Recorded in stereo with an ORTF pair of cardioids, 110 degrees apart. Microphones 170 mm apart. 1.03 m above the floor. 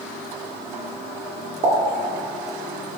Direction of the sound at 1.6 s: 50° right.